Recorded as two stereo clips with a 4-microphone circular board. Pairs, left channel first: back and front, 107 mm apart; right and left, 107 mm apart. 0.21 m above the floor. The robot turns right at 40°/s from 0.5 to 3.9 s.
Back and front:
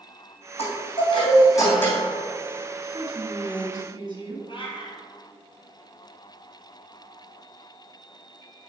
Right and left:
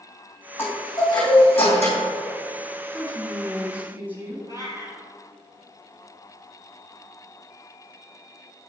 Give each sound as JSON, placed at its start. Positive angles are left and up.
{"t": 0.6, "sound": "a chime", "azimuth_deg": -160, "distance_m": 3.0}
{"t": 2.8, "sound": "a woman speaking", "azimuth_deg": -20, "distance_m": 2.0}
{"t": 4.5, "sound": "a cat meowing", "azimuth_deg": -140, "distance_m": 2.0}